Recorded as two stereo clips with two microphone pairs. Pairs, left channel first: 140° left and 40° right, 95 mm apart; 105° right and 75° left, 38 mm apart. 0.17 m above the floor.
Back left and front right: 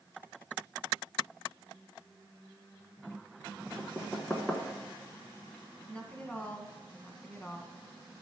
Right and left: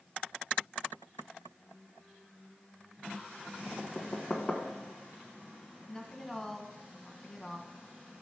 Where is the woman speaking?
165° right, 1.3 m.